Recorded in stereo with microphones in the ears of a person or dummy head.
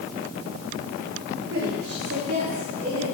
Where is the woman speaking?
60° right (ahead or behind), 4 m; by 3.0 s 45° right (ahead or behind), 4 m.